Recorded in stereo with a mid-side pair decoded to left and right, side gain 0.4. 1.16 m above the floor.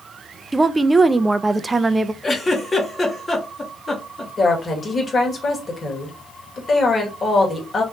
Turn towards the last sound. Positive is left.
turn(degrees=40)